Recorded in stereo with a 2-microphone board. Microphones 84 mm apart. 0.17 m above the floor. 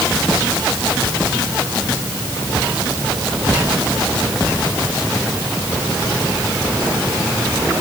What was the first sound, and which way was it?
Only background noise.